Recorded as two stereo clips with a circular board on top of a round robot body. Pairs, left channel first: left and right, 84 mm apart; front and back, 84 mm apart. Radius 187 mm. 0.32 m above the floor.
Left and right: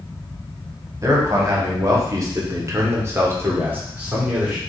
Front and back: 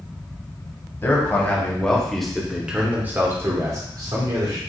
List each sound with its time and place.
1.0 s a man speaking: 50° right, 1.9 m; by 4.6 s 160° right, 2 m